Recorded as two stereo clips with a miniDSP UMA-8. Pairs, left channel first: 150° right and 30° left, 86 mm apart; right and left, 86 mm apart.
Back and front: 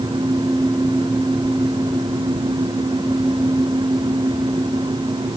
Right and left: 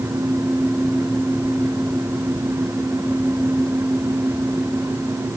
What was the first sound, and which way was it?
Only background noise.